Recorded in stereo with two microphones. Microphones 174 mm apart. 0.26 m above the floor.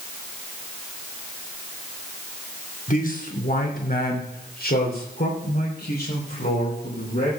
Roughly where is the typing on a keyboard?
No typing on a keyboard in this recording.